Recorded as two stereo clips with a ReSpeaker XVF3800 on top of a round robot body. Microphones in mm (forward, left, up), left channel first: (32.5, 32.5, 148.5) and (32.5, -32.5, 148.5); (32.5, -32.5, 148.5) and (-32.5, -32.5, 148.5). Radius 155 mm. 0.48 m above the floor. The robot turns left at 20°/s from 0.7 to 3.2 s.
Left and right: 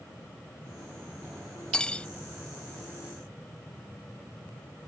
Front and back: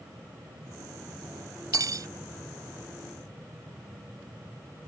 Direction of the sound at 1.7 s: 165° left.